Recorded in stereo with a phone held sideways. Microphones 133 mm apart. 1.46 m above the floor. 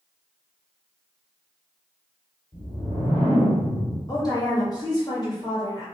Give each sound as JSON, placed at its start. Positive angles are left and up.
{"t": 2.5, "sound": "a whoosh", "side_deg": 55, "distance_m": 1.7}
{"t": 4.1, "sound": "a woman speaking", "side_deg": 30, "distance_m": 1.5}